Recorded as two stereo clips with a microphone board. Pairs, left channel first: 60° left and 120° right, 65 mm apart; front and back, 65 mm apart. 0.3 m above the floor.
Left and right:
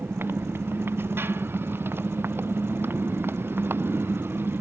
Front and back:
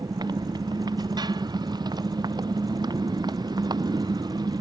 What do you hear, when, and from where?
0.0 s a motorcycle: straight behind